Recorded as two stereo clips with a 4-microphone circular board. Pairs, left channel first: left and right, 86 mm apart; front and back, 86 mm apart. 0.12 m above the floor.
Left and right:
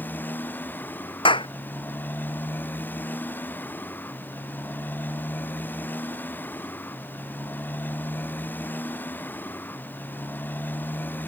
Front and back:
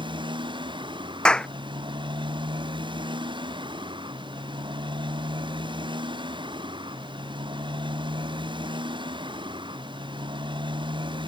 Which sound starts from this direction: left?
A clap, at 1.2 s.